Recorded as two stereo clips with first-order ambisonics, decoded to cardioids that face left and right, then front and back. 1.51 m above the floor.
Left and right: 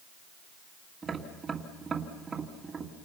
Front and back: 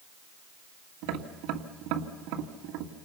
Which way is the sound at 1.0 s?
170° right.